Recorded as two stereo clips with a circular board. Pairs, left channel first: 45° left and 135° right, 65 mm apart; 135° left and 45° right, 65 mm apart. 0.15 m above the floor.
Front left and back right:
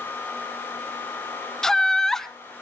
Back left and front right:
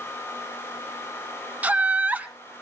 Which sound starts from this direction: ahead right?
Laughter, at 1.6 s.